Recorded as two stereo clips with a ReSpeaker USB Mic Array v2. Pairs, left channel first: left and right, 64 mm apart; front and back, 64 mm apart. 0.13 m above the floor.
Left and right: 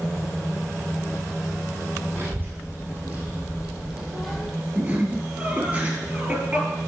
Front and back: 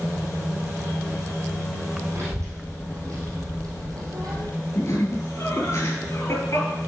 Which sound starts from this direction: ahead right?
Laughter, at 4.8 s.